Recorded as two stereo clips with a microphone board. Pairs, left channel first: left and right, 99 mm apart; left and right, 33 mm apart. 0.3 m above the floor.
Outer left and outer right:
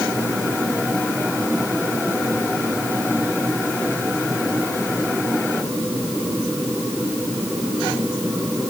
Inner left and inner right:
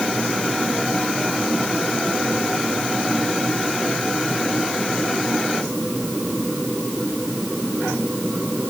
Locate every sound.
Only background noise.